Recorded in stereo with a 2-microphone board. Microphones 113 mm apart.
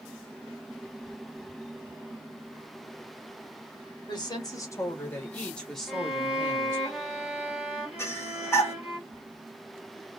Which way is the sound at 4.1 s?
40° left (ahead or behind).